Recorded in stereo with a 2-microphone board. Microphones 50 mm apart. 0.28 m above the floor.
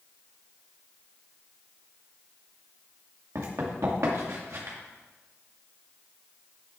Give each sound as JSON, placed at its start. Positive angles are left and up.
{"t": 3.4, "sound": "running footsteps", "side_deg": -75, "distance_m": 2.0}